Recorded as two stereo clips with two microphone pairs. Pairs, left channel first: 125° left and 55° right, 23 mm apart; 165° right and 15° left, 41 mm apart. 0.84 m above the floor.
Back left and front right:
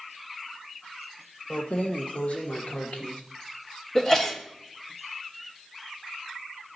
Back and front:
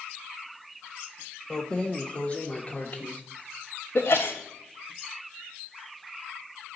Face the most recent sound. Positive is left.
turn(degrees=-175)